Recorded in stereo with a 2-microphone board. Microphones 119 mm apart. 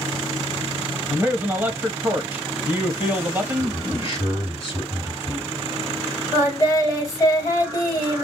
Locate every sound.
1.1 s a man speaking: 15° right (ahead or behind), 0.9 m
3.6 s a man speaking: 40° left (ahead or behind), 1.9 m
6.3 s singing: 30° left (ahead or behind), 1.7 m